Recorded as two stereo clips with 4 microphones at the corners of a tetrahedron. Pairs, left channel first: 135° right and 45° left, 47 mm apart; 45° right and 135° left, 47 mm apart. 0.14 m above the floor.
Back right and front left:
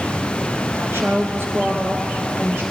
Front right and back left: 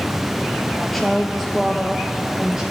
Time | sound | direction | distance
0.8 | a woman speaking | 35° left | 1.9 m